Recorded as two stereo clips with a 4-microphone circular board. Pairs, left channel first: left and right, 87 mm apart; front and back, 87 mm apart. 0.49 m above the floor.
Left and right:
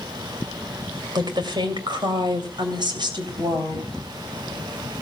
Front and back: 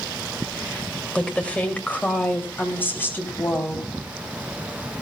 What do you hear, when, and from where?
1.1 s a woman speaking: 75° right, 2.5 m; by 3.9 s 65° right, 3.5 m